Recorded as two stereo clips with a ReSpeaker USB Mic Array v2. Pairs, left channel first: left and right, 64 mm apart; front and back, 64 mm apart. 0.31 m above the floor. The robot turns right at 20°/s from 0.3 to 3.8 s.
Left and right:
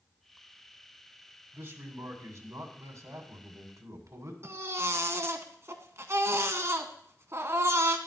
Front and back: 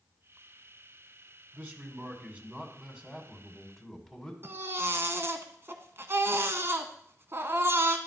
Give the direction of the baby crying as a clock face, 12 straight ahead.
4 o'clock.